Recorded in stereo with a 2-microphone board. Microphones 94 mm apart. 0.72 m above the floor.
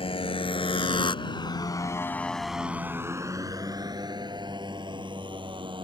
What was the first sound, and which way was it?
A motorcycle, 80° left.